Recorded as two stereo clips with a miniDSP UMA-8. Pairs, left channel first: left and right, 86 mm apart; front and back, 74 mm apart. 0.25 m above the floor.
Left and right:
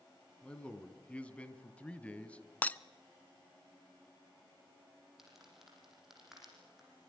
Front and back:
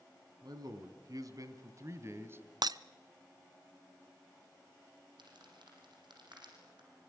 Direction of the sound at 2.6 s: 160° left.